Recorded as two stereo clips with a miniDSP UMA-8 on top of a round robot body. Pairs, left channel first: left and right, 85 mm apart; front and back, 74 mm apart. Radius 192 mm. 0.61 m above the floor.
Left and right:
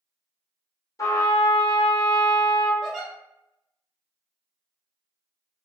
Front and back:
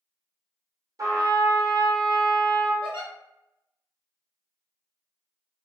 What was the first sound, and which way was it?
A trumpet, 140° left.